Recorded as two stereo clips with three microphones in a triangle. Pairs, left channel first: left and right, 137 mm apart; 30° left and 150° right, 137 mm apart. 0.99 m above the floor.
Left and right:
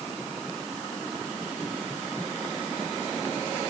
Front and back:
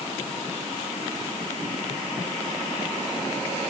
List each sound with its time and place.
Only background noise.